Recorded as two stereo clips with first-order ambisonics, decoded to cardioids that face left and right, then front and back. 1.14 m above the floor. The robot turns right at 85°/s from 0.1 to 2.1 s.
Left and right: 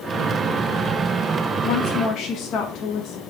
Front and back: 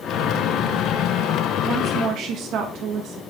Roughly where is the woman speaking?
Left.